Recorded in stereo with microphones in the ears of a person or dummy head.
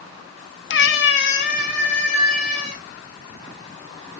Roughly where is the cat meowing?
Left.